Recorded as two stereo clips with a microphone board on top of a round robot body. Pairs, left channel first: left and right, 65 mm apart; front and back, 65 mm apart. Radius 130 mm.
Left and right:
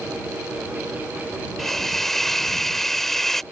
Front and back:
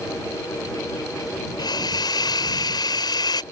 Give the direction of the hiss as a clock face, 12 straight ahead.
12 o'clock.